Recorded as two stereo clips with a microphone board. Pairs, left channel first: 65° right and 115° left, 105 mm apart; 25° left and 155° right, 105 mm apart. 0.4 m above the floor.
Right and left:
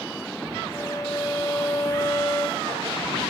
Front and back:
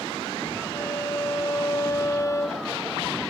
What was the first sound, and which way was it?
A violin, 25° right.